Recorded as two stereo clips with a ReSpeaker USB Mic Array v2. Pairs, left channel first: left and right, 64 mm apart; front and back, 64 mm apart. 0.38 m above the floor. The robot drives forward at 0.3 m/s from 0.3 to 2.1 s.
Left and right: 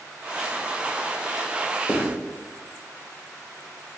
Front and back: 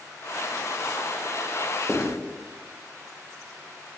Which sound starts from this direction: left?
Writing, at 1.9 s.